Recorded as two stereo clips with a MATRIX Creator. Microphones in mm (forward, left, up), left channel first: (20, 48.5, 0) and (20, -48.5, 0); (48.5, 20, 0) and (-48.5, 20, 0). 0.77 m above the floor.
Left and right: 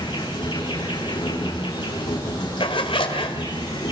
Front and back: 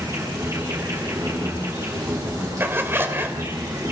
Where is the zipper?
115° left, 1.8 m.